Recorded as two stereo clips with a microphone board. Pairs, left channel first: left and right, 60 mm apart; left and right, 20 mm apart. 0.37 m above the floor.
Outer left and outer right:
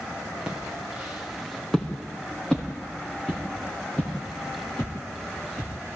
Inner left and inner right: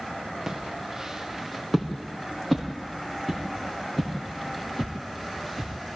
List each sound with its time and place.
0.5 s footsteps: 15° right (ahead or behind), 3.5 m; by 6.0 s 25° left (ahead or behind), 9 m